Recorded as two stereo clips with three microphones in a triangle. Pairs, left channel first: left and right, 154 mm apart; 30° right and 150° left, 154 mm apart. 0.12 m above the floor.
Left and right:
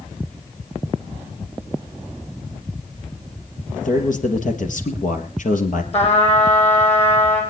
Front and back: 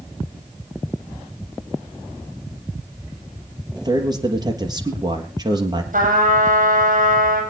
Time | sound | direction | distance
3.7 | a man speaking | 90° left | 3.5 m
5.9 | a trumpet | 130° left | 5.5 m